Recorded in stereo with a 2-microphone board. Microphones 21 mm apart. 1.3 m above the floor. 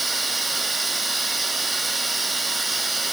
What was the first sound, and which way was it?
Running water, centre (ahead or behind).